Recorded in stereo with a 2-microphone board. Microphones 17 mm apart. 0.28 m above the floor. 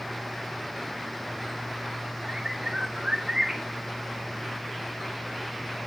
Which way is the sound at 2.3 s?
50° right (ahead or behind).